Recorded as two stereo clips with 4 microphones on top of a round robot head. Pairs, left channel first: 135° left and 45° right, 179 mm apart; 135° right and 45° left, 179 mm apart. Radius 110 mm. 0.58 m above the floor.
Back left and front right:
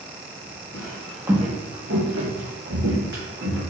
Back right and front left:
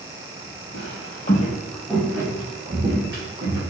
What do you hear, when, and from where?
0.7 s footsteps: 160° right, 0.9 m; by 3.6 s 20° right, 2 m